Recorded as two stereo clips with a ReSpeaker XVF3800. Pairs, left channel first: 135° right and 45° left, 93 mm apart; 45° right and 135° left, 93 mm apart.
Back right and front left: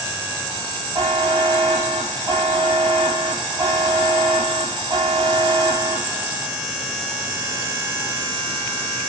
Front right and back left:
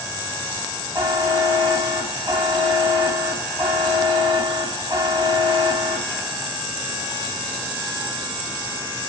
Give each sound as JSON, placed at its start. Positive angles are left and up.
{"t": 0.9, "sound": "a buzzer", "azimuth_deg": 80, "distance_m": 1.6}